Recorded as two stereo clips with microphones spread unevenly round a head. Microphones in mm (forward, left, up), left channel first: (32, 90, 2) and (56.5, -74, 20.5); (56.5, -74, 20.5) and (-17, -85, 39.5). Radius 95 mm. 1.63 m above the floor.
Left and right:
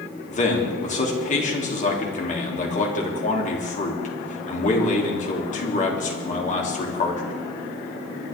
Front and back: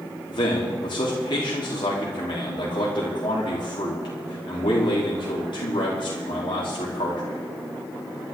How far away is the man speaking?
About 3.5 m.